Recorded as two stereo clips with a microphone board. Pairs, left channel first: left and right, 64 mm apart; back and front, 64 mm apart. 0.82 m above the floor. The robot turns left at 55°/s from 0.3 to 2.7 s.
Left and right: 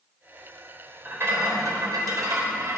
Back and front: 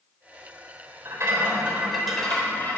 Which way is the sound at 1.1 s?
35° right.